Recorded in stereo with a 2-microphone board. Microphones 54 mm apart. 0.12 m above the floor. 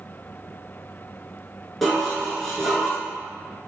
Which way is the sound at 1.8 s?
Centre (ahead or behind).